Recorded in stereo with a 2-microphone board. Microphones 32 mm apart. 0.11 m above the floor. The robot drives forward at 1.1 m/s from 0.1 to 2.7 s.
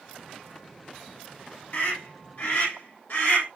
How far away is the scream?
About 5.5 m.